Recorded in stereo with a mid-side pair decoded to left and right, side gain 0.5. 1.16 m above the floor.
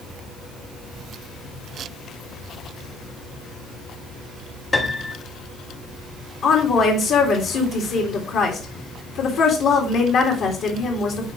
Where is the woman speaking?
65° left, 2.5 m.